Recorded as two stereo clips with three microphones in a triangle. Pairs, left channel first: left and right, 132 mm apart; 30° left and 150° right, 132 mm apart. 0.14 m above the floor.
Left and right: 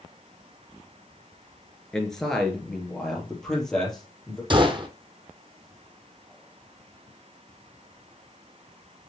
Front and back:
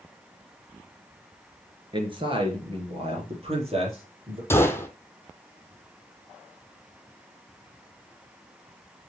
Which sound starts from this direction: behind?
A man speaking, at 1.9 s.